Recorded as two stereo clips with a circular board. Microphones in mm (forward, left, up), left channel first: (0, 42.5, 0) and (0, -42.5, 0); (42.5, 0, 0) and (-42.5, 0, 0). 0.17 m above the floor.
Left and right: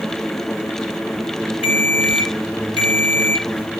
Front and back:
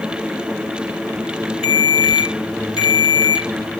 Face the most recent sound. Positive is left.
turn(degrees=25)